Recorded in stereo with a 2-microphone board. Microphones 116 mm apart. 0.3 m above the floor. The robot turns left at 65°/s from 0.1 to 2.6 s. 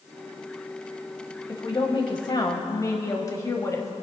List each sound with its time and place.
1.5 s a woman speaking: 120° left, 1.4 m; by 3.9 s 45° left, 1.4 m